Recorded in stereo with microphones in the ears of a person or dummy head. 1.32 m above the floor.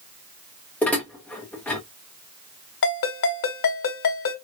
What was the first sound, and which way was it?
Dishes clattering, 5° left (ahead or behind).